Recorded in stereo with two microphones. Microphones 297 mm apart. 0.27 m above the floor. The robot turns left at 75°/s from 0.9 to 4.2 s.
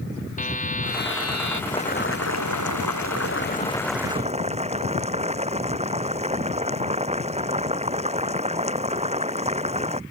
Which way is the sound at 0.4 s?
155° left.